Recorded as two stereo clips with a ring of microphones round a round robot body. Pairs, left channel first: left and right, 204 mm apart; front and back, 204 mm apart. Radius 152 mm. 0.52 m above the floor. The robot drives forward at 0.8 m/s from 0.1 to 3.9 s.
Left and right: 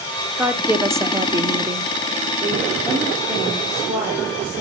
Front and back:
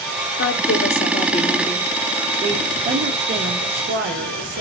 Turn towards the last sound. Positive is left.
turn(degrees=-170)